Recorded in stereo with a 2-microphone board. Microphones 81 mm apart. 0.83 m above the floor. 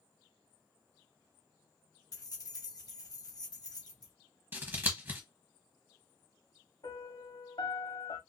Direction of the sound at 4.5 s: 25° right (ahead or behind).